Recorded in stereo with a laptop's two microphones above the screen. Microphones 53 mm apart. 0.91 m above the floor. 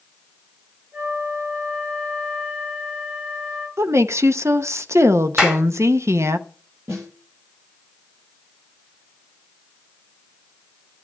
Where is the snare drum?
60° right (ahead or behind), 8.5 m.